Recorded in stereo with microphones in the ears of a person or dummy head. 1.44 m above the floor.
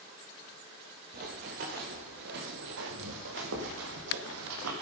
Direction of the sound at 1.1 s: 35° right (ahead or behind).